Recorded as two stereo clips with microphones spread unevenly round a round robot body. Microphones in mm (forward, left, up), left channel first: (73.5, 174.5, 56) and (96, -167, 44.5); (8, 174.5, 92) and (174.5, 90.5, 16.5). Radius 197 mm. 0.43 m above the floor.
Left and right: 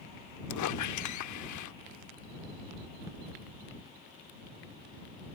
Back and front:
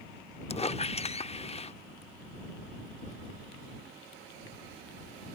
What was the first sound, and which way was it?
A squeak, 80° left.